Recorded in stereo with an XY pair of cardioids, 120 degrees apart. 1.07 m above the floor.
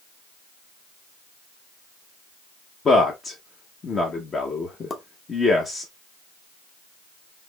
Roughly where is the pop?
Ahead left.